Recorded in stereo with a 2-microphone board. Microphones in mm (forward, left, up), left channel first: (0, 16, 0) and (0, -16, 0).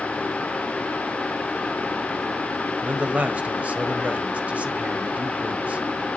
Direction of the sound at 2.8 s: 50° right (ahead or behind).